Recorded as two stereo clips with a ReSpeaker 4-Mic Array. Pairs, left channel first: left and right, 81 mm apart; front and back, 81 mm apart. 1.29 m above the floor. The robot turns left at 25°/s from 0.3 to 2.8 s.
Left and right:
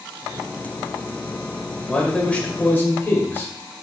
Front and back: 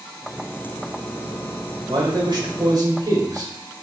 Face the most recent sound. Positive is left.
turn(degrees=150)